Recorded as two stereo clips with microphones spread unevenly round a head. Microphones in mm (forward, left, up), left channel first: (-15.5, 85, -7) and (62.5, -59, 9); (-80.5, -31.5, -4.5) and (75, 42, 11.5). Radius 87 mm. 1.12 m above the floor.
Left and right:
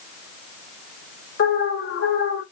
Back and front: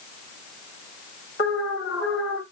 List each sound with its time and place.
1.4 s an alarm: 150° left, 3.5 m